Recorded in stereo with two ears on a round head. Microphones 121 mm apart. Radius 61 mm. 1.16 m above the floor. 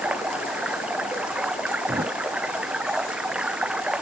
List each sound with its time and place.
0.0 s running water: 10° right (ahead or behind)
1.9 s a thud: 35° right (ahead or behind)